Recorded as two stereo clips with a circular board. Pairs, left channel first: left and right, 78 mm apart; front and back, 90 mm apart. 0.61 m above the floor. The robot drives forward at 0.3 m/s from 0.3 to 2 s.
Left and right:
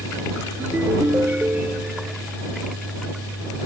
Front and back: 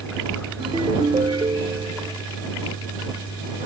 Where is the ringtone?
155° right.